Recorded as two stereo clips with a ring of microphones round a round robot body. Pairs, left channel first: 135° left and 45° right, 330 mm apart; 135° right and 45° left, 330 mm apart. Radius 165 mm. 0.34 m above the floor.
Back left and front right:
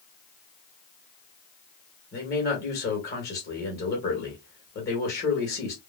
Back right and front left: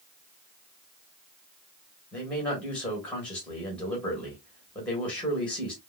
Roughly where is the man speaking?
Behind left.